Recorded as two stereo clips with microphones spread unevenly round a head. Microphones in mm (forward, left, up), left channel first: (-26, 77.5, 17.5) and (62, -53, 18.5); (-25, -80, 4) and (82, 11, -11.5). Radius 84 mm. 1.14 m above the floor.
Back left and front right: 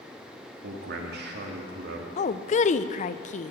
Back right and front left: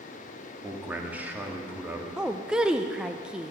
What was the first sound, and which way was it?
A man speaking, 40° right.